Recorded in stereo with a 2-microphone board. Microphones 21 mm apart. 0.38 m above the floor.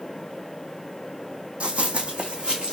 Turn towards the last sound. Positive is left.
turn(degrees=-45)  # may be behind; listen again after turning